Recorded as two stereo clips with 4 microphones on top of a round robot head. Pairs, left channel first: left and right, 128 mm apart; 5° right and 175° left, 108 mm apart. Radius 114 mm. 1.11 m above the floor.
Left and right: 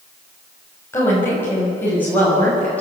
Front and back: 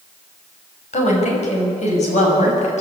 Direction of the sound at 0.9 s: 15° left.